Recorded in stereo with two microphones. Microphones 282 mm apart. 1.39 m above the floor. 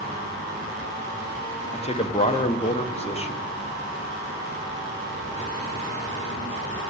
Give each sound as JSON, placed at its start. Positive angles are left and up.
{"t": 1.7, "sound": "a man speaking", "side_deg": 20, "distance_m": 1.0}